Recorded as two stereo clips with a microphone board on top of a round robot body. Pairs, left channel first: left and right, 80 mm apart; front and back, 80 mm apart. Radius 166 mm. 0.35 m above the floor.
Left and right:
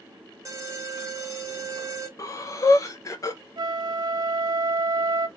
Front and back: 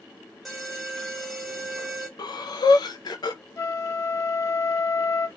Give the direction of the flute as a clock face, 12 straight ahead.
2 o'clock.